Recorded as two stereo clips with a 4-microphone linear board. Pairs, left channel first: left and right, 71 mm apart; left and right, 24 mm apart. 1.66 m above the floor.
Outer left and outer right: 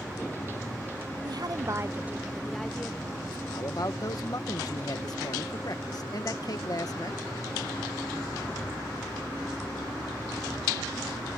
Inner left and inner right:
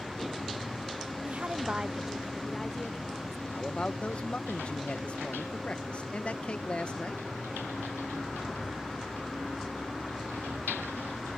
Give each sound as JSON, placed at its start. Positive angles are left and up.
{"t": 1.2, "sound": "a woman speaking", "side_deg": -70}
{"t": 3.5, "sound": "a man speaking", "side_deg": 55}